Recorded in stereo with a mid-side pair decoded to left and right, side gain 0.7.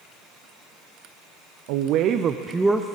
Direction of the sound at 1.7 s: 70° right.